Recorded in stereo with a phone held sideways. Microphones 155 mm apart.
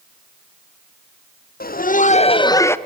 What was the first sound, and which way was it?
Laughter, 75° left (ahead or behind).